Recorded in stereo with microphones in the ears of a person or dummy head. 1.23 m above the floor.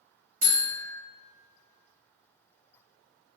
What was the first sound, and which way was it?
A buzzer, 45° right (ahead or behind).